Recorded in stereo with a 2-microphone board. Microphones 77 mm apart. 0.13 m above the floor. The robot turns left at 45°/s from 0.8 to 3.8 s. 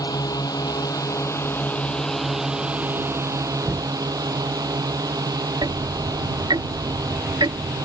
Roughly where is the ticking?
Right.